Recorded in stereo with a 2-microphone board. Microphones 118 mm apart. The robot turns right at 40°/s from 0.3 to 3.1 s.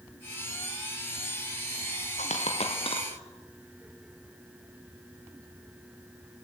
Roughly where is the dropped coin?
Left.